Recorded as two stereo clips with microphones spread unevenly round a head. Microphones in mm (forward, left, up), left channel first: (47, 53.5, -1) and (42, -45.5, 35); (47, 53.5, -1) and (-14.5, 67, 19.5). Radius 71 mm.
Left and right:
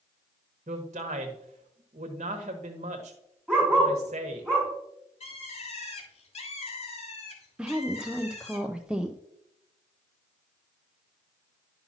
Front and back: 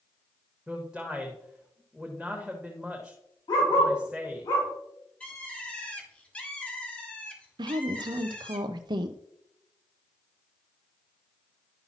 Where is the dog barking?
Straight ahead, 4 m.